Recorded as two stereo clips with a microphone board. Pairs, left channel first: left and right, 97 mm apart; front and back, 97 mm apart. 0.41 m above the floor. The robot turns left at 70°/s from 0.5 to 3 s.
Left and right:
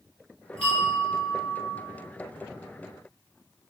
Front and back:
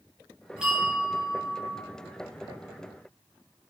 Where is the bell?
100° left, 1.1 m; by 1.8 s 15° left, 1.1 m.